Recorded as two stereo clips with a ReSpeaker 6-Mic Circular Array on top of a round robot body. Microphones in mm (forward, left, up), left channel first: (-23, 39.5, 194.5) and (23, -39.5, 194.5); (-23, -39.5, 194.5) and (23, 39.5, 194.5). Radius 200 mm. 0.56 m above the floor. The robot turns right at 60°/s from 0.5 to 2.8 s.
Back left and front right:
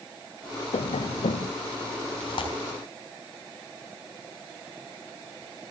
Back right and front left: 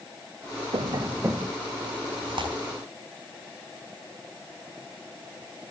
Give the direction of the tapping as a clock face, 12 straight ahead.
9 o'clock.